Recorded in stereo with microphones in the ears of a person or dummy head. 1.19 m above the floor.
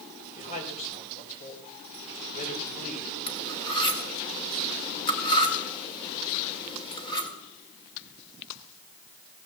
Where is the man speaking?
40° left (ahead or behind), 5 m.